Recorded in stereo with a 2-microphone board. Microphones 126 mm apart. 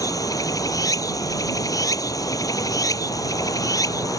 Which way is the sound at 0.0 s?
25° left (ahead or behind).